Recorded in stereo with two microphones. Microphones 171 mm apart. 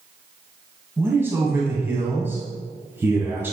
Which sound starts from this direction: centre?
A man speaking, at 1.0 s.